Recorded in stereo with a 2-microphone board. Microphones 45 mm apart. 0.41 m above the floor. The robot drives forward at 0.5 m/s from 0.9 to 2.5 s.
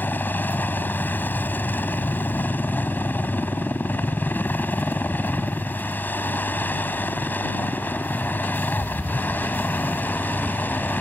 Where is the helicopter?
45° left (ahead or behind).